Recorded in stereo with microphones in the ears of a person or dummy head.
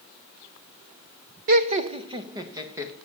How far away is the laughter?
About 0.7 m.